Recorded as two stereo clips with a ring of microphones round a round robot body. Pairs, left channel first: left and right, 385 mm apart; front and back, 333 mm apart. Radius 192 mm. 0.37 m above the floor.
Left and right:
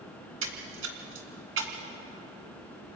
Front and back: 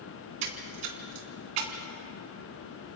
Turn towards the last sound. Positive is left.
turn(degrees=-150)